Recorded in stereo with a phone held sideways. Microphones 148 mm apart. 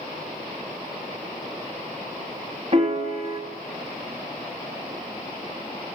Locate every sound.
2.7 s a piano: 45° right (ahead or behind), 1.8 m